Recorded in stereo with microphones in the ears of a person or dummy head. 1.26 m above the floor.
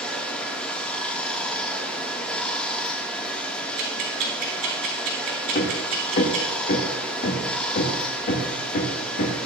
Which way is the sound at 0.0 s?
10° left (ahead or behind).